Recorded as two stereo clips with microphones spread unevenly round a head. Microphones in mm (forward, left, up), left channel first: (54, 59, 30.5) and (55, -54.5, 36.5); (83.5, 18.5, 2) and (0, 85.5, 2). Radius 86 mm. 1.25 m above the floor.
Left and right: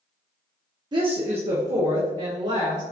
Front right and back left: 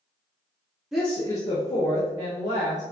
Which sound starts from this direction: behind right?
A woman speaking, at 0.9 s.